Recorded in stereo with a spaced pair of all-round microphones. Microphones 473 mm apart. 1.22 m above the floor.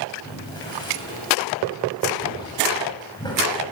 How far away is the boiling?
About 8 m.